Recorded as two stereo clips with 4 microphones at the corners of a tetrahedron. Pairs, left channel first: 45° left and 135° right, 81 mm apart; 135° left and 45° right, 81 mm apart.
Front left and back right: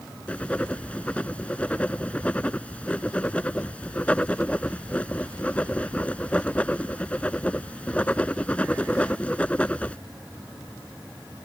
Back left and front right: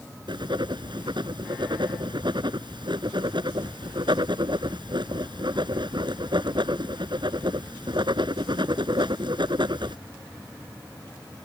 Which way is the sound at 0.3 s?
30° right.